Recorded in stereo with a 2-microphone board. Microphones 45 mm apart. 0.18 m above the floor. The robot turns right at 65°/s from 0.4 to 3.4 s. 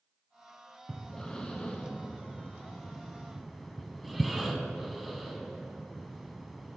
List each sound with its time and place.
0.9 s breathing: 5° left (ahead or behind), 0.6 m; by 6.8 s centre (ahead or behind), 0.6 m